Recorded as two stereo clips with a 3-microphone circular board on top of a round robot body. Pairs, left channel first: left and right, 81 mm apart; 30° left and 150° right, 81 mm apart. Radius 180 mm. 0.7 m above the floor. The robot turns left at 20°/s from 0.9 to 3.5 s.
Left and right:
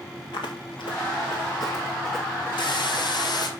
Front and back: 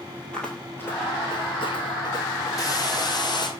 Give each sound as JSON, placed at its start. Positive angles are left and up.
{"t": 0.3, "sound": "footsteps", "azimuth_deg": 110, "distance_m": 1.0}
{"t": 2.6, "sound": "a hiss", "azimuth_deg": 75, "distance_m": 2.5}